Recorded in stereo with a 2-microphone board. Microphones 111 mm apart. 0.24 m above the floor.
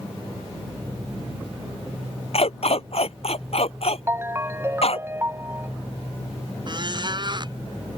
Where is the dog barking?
65° left (ahead or behind).